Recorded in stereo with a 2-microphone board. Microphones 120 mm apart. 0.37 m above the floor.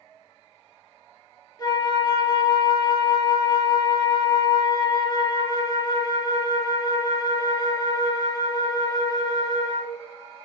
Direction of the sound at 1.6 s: 35° left (ahead or behind).